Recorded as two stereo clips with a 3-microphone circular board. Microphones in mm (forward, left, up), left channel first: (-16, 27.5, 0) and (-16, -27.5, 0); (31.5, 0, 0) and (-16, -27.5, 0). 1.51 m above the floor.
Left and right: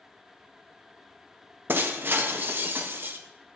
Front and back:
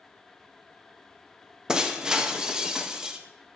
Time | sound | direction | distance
1.7 | breaking glass | 80° right | 0.9 m